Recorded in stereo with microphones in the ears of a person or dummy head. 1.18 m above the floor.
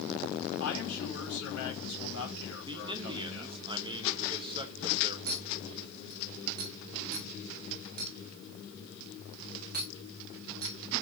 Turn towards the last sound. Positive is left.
turn(degrees=-45)  # may be behind; listen again after turning